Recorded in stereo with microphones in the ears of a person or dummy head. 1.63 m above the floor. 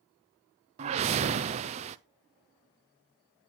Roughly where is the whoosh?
Right.